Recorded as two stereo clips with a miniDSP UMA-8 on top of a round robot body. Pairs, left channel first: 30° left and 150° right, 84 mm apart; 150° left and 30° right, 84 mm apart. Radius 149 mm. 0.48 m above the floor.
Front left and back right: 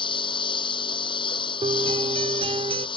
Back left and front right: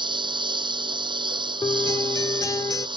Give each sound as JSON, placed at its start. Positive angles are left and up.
{"t": 0.0, "sound": "a lawn mower", "azimuth_deg": 0}
{"t": 1.6, "sound": "a guitar", "azimuth_deg": -155}